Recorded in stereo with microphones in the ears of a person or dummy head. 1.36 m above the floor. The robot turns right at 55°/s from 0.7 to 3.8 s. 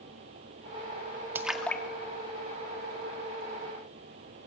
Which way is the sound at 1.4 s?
10° right (ahead or behind).